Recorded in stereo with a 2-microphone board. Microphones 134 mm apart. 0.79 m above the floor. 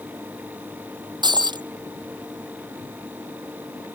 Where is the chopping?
I don't hear chopping.